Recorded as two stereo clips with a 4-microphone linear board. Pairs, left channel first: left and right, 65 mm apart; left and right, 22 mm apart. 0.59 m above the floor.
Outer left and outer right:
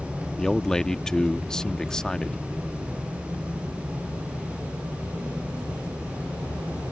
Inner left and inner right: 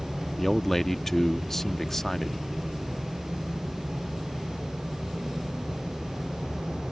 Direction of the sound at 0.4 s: 10° left (ahead or behind).